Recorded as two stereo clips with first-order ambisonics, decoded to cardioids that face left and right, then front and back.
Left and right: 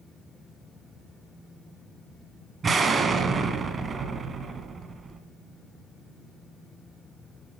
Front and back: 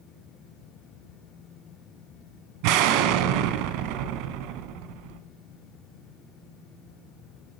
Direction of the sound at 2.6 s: 160° right.